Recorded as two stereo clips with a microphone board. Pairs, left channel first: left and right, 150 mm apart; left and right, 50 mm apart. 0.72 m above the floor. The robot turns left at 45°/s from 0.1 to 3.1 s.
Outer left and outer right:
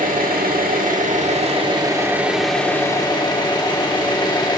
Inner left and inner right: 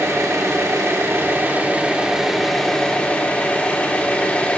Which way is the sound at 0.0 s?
75° right.